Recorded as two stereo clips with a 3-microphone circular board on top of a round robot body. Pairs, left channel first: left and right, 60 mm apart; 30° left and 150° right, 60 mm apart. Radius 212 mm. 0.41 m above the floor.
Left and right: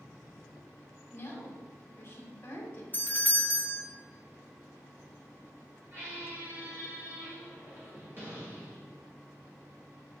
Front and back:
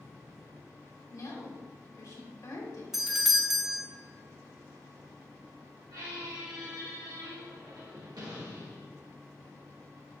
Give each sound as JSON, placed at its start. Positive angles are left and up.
{"t": 1.1, "sound": "a woman speaking", "azimuth_deg": 45, "distance_m": 2.5}
{"t": 2.9, "sound": "a doorbell", "azimuth_deg": 130, "distance_m": 1.3}
{"t": 5.9, "sound": "a squeak", "azimuth_deg": -145, "distance_m": 2.5}